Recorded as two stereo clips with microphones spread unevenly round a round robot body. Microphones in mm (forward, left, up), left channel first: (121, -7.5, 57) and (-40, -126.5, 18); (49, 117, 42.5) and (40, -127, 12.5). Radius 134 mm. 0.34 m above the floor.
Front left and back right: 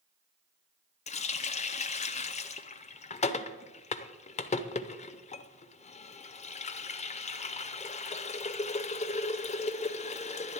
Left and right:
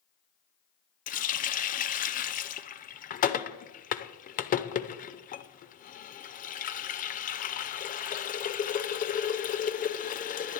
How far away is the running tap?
About 0.6 m.